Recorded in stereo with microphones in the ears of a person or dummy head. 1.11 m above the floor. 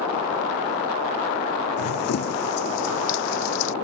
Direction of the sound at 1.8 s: 55° left (ahead or behind).